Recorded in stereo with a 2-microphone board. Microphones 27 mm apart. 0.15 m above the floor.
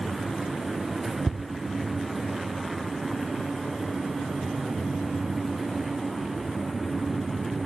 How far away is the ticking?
About 0.8 m.